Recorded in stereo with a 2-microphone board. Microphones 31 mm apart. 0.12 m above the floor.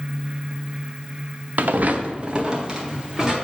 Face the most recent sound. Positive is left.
turn(degrees=-15)  # may be behind; listen again after turning